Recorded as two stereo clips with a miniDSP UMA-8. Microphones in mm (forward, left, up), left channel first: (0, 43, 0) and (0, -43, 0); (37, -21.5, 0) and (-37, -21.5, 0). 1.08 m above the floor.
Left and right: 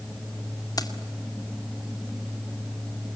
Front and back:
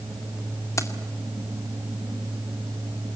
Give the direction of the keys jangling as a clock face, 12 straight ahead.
10 o'clock.